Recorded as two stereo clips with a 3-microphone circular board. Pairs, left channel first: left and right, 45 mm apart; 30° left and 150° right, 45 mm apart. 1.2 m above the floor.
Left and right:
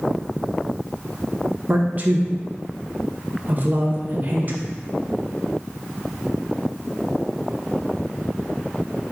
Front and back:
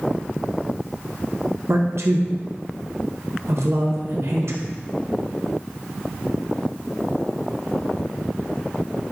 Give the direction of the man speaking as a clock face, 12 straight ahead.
5 o'clock.